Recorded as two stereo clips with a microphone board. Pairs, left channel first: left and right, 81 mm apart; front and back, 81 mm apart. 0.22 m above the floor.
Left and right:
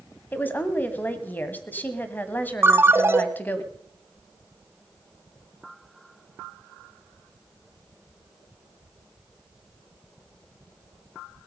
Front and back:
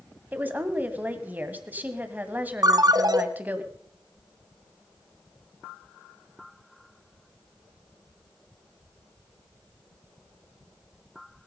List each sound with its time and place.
0.3 s a woman speaking: 135° left, 1.4 m
2.6 s a ringtone: 150° right, 0.9 m